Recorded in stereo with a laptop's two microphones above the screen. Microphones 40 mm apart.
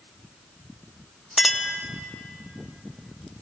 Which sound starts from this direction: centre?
A clink, at 1.4 s.